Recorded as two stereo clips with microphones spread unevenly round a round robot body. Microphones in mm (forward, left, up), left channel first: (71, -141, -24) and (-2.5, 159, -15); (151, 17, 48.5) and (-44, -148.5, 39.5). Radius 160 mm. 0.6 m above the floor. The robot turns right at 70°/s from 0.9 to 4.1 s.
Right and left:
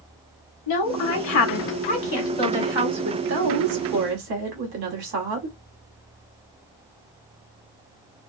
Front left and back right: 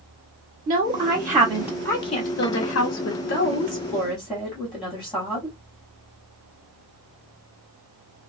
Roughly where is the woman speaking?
Right.